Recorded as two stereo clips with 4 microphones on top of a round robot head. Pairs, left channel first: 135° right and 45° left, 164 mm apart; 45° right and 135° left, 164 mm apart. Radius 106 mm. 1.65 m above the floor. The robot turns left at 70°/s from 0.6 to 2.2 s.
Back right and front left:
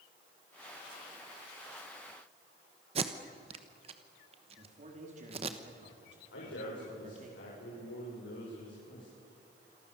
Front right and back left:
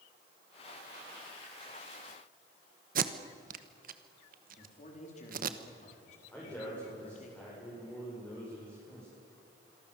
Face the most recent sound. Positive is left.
turn(degrees=-125)